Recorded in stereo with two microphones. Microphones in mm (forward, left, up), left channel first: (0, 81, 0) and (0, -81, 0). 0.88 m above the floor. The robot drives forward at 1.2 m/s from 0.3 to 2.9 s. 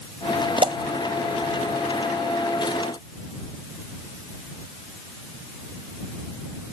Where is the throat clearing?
No throat clearing in this recording.